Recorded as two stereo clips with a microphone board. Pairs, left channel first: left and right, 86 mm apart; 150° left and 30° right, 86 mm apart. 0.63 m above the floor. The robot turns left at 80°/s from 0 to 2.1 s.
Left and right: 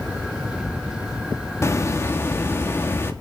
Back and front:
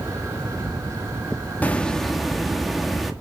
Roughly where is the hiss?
Left.